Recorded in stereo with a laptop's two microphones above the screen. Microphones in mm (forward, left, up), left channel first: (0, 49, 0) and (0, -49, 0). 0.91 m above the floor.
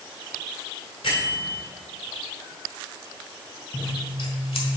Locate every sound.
1.0 s a bell: 65° left (ahead or behind), 2.0 m
3.7 s scissors: 75° left (ahead or behind), 1.4 m